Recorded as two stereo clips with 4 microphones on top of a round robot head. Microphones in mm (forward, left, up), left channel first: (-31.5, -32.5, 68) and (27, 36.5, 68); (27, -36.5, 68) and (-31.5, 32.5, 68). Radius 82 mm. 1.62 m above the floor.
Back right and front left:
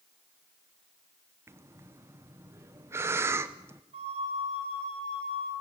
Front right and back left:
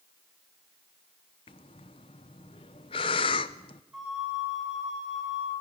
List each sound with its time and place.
1.5 s breathing: 15° right, 0.7 m
3.9 s a flute: 45° left, 6 m